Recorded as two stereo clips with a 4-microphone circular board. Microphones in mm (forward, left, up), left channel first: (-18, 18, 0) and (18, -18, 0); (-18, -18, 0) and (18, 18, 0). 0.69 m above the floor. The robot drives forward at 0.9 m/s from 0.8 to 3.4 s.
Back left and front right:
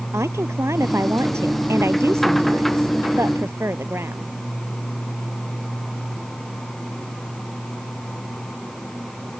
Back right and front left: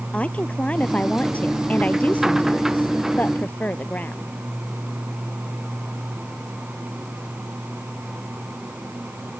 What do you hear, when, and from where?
0.1 s a woman speaking: 70° right; by 4.3 s 80° right